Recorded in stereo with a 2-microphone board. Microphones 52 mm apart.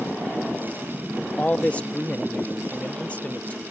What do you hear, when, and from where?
1.4 s a man speaking: 30° left (ahead or behind)